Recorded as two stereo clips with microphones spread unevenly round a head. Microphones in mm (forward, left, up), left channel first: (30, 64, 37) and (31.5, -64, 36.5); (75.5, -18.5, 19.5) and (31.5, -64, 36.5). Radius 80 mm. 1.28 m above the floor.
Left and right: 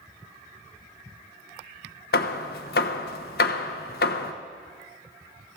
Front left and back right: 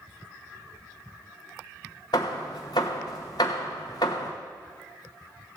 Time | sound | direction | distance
2.1 | hammering | 105° left | 1.0 m